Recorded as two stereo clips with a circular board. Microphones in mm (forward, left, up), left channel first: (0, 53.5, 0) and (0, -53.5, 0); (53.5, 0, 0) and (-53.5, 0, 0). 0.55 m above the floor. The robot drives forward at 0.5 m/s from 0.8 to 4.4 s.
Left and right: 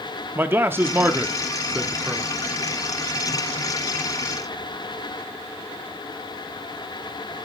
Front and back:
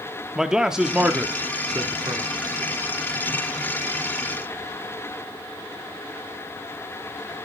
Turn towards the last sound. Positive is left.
turn(degrees=-170)